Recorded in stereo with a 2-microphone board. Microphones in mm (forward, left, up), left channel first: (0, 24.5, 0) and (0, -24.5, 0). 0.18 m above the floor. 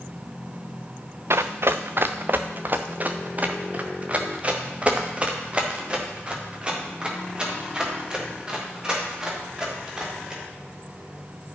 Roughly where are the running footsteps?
Right.